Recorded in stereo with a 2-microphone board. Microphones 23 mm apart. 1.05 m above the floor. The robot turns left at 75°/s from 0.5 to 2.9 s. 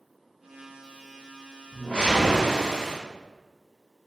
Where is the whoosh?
70° left, 1.1 m; by 3.0 s 20° right, 1.1 m.